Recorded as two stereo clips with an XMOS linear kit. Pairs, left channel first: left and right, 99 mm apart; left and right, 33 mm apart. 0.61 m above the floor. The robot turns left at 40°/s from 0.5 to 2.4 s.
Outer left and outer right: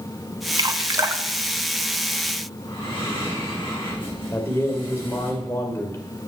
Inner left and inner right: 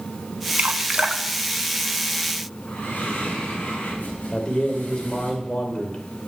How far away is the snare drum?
I don't hear a snare drum.